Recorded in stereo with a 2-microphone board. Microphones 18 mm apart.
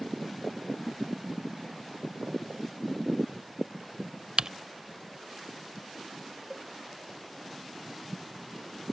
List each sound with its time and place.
4.4 s typing on a keyboard: 50° right (ahead or behind)
6.5 s a cowbell: 5° right (ahead or behind)